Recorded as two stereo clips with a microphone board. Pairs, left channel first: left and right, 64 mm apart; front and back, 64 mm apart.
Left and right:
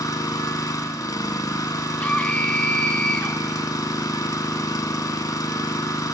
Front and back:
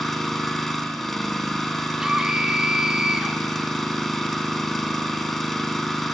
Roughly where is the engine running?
Left.